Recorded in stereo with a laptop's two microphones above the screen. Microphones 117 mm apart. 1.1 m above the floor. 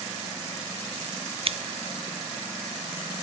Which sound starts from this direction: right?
Scissors, at 1.4 s.